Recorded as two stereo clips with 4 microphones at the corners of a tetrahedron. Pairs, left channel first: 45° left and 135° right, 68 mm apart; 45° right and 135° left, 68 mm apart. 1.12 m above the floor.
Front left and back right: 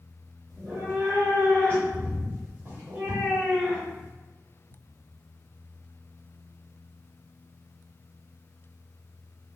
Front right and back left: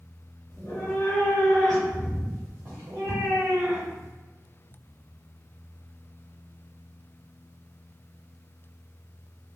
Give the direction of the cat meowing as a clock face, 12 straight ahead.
3 o'clock.